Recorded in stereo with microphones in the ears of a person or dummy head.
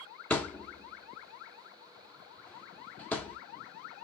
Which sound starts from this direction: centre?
A thud, at 0.3 s.